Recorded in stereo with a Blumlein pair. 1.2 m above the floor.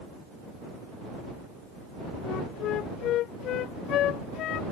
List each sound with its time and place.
2.2 s a flute: 35° left